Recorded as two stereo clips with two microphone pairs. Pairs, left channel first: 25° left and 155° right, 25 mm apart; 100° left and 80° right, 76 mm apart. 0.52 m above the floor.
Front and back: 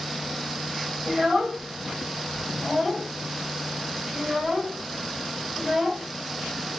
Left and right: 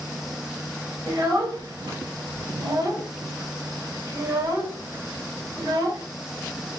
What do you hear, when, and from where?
1.1 s a child speaking: 95° right, 1.9 m